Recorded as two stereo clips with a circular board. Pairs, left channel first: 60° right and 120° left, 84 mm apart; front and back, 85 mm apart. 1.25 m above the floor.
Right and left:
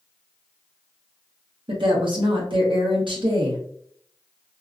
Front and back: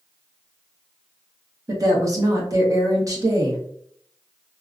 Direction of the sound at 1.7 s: 130° left.